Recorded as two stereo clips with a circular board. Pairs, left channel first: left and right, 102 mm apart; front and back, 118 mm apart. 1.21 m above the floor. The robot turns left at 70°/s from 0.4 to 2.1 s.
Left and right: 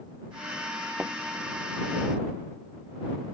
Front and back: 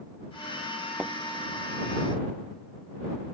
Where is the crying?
No crying in this recording.